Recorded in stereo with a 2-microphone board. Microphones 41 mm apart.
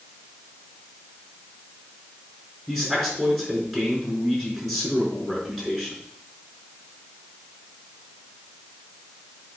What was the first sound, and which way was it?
A man speaking, 5° left (ahead or behind).